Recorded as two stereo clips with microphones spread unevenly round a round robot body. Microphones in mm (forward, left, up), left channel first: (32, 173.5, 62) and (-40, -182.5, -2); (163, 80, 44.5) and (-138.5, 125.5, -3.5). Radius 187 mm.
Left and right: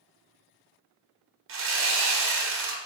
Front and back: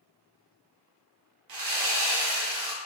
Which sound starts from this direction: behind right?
Sawing, at 1.5 s.